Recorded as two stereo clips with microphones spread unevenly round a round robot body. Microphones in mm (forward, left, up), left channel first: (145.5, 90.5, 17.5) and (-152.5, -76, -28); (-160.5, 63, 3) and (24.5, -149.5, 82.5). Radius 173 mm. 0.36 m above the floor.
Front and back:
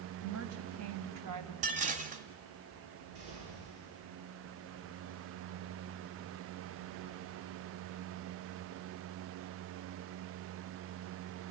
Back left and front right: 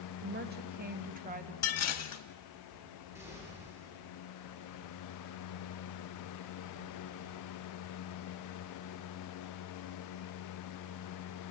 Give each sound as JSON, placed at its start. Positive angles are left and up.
{"t": 0.2, "sound": "a woman speaking", "azimuth_deg": -110, "distance_m": 2.5}
{"t": 1.6, "sound": "dishes clattering", "azimuth_deg": 145, "distance_m": 1.8}
{"t": 3.1, "sound": "an explosion", "azimuth_deg": -135, "distance_m": 7.5}